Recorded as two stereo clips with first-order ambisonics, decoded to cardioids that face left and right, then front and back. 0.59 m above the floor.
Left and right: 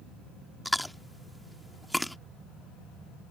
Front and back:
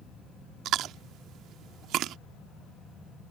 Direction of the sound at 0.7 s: Straight behind.